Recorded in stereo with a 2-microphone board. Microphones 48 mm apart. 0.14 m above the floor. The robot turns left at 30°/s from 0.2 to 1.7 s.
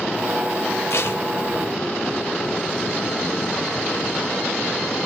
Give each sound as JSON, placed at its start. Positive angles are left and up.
{"t": 0.9, "sound": "tape being pulled", "side_deg": 65, "distance_m": 5.0}